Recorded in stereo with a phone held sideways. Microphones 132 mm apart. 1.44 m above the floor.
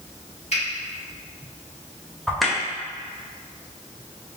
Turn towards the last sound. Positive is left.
turn(degrees=0)  # may be behind; listen again after turning